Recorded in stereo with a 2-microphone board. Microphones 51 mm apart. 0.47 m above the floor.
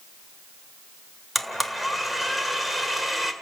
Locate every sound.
1.4 s a blender: centre (ahead or behind), 1.6 m